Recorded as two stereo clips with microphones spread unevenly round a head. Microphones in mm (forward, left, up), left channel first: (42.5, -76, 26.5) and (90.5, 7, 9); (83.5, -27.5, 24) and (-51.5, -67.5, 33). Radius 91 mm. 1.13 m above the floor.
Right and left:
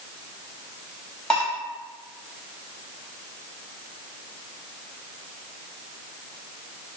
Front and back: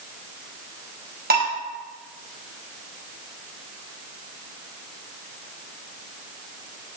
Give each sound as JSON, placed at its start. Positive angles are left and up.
{"t": 1.3, "sound": "dishes clattering", "azimuth_deg": 155, "distance_m": 5.0}